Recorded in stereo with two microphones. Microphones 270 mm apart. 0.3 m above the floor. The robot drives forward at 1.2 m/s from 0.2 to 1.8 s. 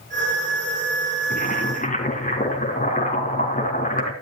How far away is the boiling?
About 3 m.